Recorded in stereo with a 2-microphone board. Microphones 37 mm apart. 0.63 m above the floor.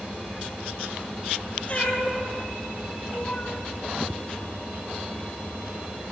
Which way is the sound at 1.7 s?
35° left (ahead or behind).